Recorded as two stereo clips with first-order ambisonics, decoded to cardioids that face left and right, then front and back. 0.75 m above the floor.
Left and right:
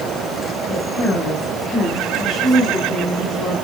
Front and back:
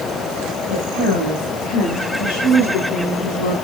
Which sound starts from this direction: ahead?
A woman speaking, at 0.7 s.